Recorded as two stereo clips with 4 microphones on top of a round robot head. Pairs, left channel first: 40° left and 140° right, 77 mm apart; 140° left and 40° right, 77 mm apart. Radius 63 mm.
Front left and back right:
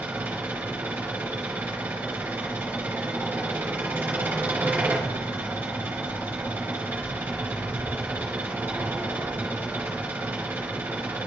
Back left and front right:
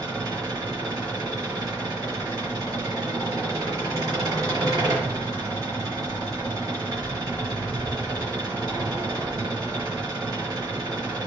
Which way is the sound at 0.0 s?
75° right.